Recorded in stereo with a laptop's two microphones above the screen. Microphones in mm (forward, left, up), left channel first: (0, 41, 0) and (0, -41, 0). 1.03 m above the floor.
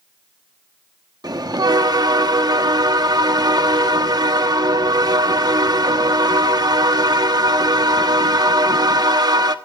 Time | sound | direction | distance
1.2 | a bell | 55° right (ahead or behind) | 1.1 m